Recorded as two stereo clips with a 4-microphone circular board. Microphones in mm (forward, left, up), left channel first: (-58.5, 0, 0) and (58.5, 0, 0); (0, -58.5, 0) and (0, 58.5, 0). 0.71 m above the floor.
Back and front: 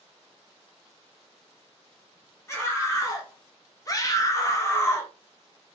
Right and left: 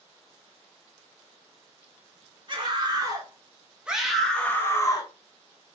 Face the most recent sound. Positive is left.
turn(degrees=-125)